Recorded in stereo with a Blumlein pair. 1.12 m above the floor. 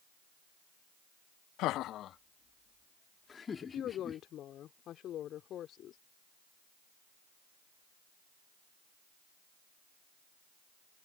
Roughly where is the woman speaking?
Ahead left.